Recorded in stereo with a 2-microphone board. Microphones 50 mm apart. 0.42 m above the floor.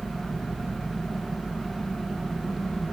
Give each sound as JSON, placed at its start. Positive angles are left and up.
{"t": 0.0, "sound": "an engine running", "side_deg": 15, "distance_m": 3.5}